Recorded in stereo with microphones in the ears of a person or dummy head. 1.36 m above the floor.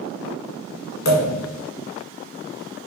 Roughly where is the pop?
Left.